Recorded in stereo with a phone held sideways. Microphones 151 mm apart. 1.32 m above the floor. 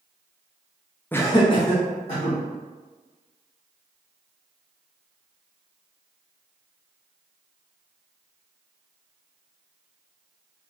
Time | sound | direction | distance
1.1 | laughter | 10° left (ahead or behind) | 0.5 m